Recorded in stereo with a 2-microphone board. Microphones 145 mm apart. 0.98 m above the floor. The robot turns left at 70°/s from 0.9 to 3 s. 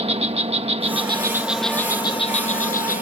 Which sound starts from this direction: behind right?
An insect, at 0.0 s.